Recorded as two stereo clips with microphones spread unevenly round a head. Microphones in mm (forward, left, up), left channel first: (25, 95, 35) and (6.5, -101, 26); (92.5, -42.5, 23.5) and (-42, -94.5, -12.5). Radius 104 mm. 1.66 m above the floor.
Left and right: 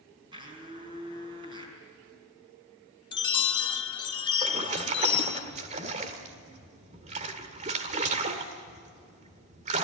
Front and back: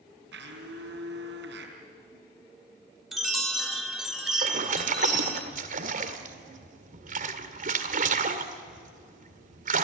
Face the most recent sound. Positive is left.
turn(degrees=-145)